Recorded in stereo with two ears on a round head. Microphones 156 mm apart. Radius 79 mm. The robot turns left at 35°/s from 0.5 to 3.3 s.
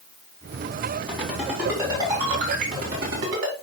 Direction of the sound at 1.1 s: 10° left (ahead or behind).